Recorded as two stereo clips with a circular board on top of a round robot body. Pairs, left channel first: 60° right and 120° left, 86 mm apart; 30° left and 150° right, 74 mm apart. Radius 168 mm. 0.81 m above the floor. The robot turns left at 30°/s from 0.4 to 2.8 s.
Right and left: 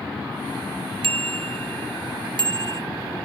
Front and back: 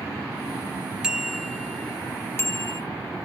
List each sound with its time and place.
1.0 s a bicycle bell: 130° left; by 2.8 s 75° left